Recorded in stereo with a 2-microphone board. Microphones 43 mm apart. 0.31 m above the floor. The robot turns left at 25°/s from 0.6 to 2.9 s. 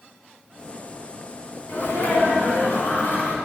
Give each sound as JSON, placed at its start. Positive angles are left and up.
{"t": 1.7, "sound": "a sneeze", "azimuth_deg": 80, "distance_m": 2.5}